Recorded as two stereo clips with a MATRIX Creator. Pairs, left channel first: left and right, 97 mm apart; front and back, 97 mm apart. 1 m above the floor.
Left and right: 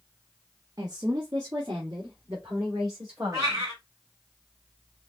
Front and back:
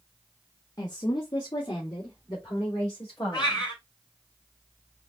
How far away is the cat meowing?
About 2 m.